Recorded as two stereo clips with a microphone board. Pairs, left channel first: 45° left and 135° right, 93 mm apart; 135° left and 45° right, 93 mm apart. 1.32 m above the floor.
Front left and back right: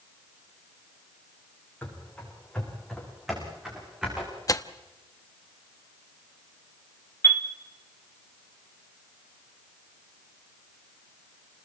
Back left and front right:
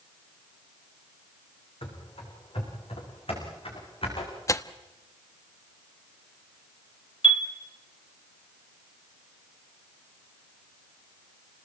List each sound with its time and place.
1.8 s running footsteps: 120° left, 6.5 m; by 4.3 s 145° left, 7.5 m
4.5 s tearing paper: 85° left, 1.0 m
7.2 s a chime: 110° left, 2.0 m